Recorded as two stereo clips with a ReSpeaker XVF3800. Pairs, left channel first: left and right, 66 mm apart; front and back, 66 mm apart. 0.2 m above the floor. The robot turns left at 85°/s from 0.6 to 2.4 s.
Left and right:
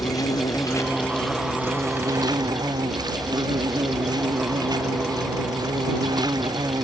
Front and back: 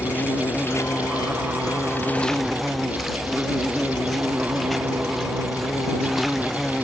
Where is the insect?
60° left; by 6.8 s 90° right.